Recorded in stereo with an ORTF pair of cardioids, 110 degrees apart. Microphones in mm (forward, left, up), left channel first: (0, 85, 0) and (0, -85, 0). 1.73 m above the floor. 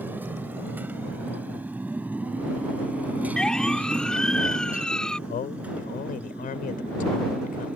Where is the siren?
5° left.